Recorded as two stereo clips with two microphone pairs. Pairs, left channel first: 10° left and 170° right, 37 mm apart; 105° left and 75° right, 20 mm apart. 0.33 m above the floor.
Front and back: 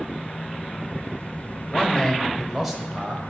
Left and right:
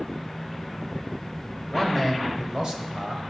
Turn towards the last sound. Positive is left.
turn(degrees=-105)